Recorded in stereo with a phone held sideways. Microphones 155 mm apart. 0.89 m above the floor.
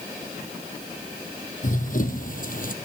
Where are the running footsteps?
60° left (ahead or behind), 2 m; by 2.7 s 65° left (ahead or behind), 1.8 m.